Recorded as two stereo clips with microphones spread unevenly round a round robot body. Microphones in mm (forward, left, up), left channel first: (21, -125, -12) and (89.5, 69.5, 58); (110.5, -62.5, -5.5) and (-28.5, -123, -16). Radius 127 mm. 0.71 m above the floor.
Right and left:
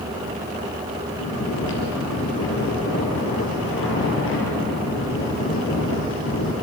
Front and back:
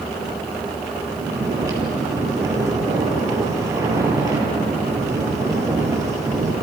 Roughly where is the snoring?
Right.